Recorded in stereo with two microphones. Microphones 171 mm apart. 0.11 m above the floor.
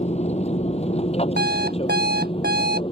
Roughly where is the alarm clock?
Right.